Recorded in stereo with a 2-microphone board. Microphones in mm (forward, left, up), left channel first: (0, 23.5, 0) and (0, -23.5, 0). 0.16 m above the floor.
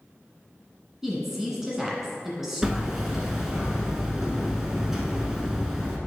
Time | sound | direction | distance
1.0 | a woman speaking | 10° right (ahead or behind) | 1.5 m
2.6 | hammering | 10° right (ahead or behind) | 1.0 m